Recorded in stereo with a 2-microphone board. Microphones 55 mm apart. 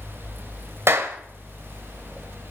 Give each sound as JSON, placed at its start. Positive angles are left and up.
{"t": 0.9, "sound": "a clap", "side_deg": -45, "distance_m": 1.5}